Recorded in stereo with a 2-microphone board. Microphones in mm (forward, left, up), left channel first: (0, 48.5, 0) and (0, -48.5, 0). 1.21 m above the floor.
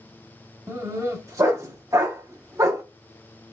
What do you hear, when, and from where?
0.7 s a dog barking: 30° right (ahead or behind), 0.7 m